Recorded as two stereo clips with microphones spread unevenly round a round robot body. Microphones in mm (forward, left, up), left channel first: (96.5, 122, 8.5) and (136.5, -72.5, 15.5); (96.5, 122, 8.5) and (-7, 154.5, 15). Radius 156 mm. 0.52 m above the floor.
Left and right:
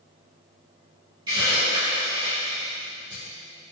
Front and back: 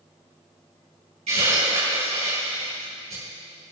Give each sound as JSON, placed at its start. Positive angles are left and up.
{"t": 1.3, "sound": "a hiss", "azimuth_deg": -155, "distance_m": 6.0}